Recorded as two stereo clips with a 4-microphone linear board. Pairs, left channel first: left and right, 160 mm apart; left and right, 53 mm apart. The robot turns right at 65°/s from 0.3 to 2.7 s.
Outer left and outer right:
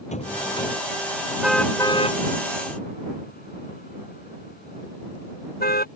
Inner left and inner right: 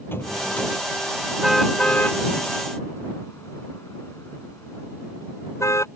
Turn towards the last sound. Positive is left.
turn(degrees=75)  # may be behind; listen again after turning